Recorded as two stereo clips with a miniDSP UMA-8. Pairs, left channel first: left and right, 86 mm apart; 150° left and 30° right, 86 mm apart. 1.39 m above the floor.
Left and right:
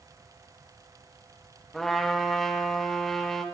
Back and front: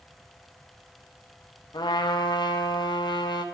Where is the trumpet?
175° left, 0.6 m.